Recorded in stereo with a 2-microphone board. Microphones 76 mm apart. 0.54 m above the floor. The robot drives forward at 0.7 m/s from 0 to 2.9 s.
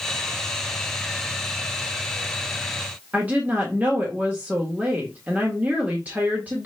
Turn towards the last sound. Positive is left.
turn(degrees=-20)  # may be behind; listen again after turning